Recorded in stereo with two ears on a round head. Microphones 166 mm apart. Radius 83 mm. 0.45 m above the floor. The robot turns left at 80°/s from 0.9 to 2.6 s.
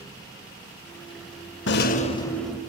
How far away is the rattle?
About 0.6 m.